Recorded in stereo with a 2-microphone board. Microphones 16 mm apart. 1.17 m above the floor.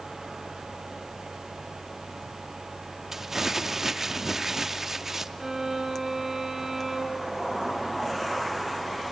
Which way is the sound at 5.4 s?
30° right (ahead or behind).